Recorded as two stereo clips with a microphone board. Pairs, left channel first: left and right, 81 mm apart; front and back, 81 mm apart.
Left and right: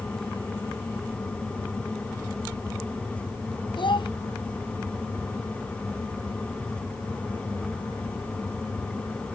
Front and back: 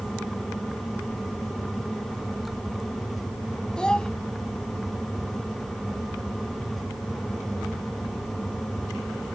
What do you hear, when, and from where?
3.8 s a child speaking: 80° left